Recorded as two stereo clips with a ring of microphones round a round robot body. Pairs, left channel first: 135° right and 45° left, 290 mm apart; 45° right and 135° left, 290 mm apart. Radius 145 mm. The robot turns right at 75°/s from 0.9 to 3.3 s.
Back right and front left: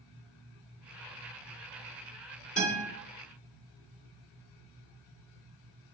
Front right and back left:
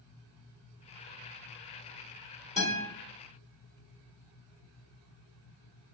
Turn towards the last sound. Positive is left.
turn(degrees=-110)